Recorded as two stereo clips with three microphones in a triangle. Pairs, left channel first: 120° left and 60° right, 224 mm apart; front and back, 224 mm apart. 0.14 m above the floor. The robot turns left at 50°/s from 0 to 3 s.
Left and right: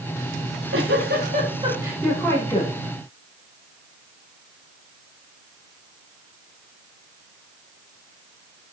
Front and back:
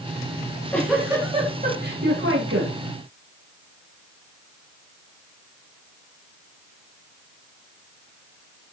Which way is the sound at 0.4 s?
65° right.